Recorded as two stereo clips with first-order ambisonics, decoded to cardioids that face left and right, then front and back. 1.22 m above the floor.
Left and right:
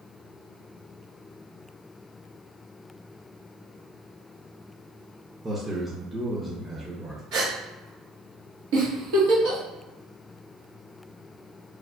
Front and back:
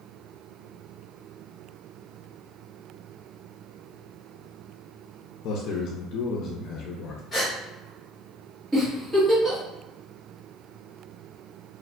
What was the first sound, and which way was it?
A man speaking, 15° right.